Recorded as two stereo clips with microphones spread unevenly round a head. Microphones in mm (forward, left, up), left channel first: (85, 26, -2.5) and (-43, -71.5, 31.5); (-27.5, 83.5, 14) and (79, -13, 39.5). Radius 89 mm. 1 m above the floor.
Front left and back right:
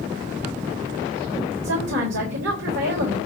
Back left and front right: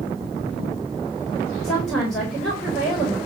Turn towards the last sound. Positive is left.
turn(degrees=-135)